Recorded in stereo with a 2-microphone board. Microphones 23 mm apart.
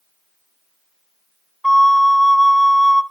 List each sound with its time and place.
1.6 s a flute: 15° left (ahead or behind), 0.5 m